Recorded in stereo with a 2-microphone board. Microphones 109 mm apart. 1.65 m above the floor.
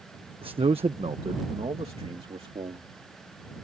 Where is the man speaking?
55° right (ahead or behind); by 2.9 s 65° right (ahead or behind).